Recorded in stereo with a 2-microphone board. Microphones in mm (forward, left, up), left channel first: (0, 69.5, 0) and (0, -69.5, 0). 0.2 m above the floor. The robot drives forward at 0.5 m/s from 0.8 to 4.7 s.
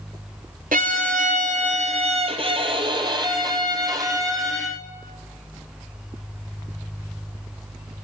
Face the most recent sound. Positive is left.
turn(degrees=-25)  # may be behind; listen again after turning